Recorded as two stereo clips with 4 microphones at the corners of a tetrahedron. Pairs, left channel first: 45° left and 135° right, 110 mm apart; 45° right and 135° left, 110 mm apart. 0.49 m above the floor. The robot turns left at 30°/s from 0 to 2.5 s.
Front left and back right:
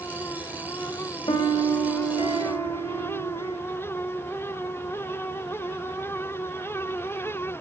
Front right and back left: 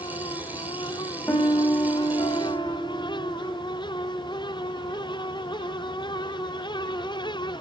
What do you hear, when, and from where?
1.3 s a piano: 25° left, 3 m; by 3.6 s 15° right, 3 m